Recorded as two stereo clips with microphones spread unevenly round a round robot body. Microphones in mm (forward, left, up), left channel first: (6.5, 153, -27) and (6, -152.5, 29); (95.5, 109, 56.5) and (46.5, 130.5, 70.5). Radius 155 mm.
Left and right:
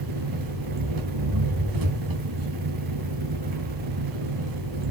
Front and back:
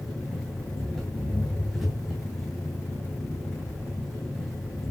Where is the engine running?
115° right, 3.5 m.